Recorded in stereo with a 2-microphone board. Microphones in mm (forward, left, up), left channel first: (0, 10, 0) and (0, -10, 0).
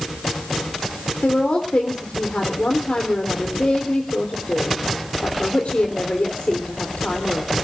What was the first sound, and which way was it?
A woman speaking, 70° left (ahead or behind).